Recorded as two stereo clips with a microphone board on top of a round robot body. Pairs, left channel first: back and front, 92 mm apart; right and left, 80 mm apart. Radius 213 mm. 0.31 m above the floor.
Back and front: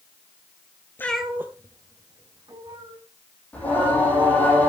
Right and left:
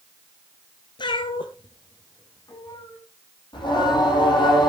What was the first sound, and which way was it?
A cat meowing, 115° right.